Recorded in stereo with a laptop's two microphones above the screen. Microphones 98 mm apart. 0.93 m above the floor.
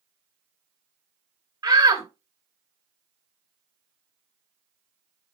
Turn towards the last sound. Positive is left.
turn(degrees=-35)  # may be behind; listen again after turning